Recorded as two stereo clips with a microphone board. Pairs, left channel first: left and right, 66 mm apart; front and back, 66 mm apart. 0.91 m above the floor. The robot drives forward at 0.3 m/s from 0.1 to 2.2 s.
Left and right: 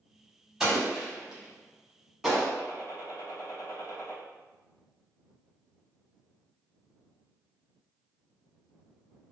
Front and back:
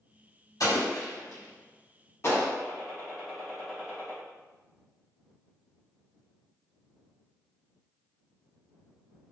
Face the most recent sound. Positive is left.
turn(degrees=95)